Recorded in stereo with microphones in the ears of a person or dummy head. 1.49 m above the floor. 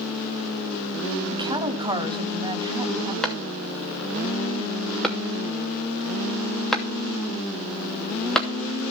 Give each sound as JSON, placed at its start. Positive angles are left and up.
{"t": 1.3, "sound": "a woman speaking", "side_deg": -20, "distance_m": 3.0}
{"t": 3.2, "sound": "a clap", "side_deg": 5, "distance_m": 2.5}